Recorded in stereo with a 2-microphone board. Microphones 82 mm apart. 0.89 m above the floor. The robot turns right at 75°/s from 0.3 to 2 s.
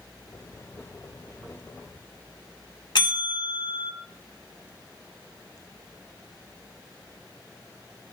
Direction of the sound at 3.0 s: 65° left (ahead or behind).